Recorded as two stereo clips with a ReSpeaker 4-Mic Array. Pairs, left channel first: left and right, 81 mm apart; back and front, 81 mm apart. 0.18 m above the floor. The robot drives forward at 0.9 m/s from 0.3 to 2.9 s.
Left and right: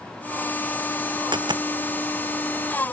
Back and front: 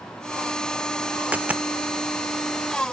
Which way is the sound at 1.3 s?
70° right.